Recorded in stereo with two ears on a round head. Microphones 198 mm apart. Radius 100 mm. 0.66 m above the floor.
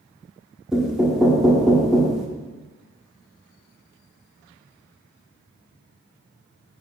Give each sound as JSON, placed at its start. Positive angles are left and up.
{"t": 0.7, "sound": "knocking", "side_deg": 0, "distance_m": 0.9}